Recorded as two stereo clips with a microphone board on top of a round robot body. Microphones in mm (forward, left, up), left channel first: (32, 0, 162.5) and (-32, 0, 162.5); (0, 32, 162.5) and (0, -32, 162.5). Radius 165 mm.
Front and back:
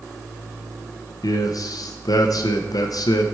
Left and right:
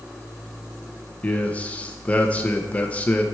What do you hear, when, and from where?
1.2 s a man speaking: 20° left, 0.8 m